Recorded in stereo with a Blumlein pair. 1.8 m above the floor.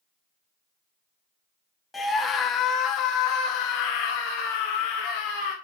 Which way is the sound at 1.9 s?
5° left.